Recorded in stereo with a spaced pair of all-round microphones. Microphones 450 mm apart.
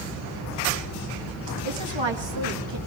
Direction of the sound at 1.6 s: 75° right (ahead or behind).